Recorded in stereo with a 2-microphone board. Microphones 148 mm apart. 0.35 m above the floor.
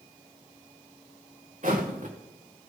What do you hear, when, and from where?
1.6 s footsteps: 55° right (ahead or behind), 1.8 m